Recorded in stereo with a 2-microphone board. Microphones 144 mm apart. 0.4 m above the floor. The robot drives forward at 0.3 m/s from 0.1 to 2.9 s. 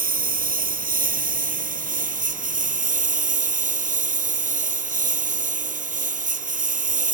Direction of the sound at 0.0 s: 75° right (ahead or behind).